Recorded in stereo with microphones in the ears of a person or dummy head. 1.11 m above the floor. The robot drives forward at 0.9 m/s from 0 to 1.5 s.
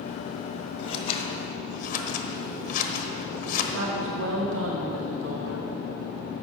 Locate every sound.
0.8 s scissors: 30° left (ahead or behind), 1.7 m; by 3.6 s 45° left (ahead or behind), 1.2 m
3.7 s a woman speaking: 85° right, 1.1 m